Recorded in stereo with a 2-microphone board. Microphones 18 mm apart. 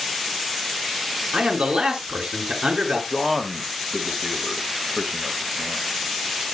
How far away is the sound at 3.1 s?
About 2 m.